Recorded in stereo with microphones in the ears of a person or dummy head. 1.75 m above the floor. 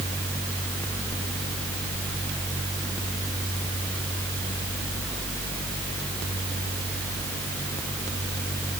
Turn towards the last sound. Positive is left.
No sound to turn to.